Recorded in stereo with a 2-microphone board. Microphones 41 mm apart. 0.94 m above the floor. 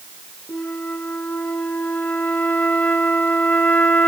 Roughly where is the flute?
Left.